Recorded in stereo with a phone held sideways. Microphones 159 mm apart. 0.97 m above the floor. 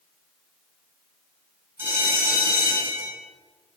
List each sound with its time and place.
1.8 s a bell: 15° right (ahead or behind), 7.5 m